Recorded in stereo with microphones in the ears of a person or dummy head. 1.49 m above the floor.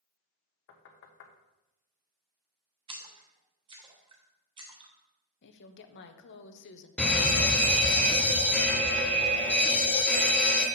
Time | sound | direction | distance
0.7 | knocking | 65° left (ahead or behind) | 1.1 m
2.9 | a splash | 25° right (ahead or behind) | 1.1 m
5.4 | a woman speaking | 65° left (ahead or behind) | 1.0 m
7.0 | a fire alarm | 10° left (ahead or behind) | 1.1 m